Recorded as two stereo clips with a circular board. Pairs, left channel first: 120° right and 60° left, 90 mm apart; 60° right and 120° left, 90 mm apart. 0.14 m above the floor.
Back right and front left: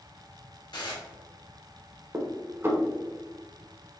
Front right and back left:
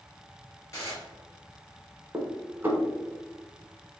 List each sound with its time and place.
0.7 s dishes clattering: 110° right, 1.7 m
2.1 s dishes clattering: 80° left, 0.9 m